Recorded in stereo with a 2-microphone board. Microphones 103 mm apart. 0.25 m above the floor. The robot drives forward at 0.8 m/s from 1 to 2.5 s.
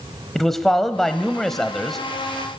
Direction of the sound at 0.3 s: 5° left (ahead or behind).